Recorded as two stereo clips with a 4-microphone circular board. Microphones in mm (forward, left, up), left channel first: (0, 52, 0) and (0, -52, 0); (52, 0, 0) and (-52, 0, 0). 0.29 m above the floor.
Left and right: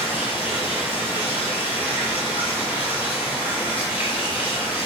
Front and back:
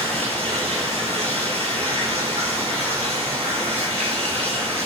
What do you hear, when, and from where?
0.0 s running water: 165° right, 6.5 m